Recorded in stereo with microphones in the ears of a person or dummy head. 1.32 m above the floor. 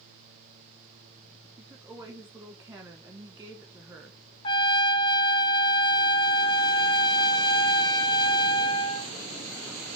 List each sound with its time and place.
1.6 s a woman speaking: 10° right (ahead or behind), 1.2 m
4.4 s a trumpet: 25° left (ahead or behind), 1.1 m